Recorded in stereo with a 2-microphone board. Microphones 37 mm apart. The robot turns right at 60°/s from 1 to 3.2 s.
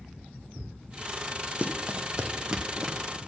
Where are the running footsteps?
35° right (ahead or behind), 1.1 m; by 3.2 s centre (ahead or behind), 1.2 m.